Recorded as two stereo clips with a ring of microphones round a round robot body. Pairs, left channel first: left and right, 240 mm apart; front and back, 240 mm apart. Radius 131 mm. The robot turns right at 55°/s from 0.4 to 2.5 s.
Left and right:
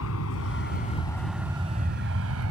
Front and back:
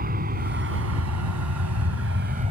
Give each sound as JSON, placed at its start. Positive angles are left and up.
{"t": 0.0, "sound": "an aircraft", "azimuth_deg": 130}